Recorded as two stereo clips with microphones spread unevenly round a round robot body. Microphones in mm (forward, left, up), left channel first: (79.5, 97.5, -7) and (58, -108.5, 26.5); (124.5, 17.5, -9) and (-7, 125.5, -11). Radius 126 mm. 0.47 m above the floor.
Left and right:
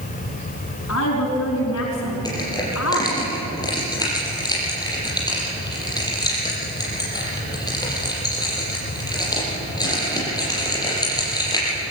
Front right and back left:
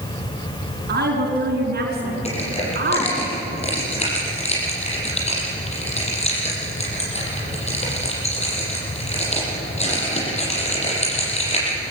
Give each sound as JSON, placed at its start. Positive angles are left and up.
{"t": 0.9, "sound": "a woman speaking", "azimuth_deg": 120, "distance_m": 5.0}
{"t": 2.2, "sound": "crushing", "azimuth_deg": 10, "distance_m": 8.0}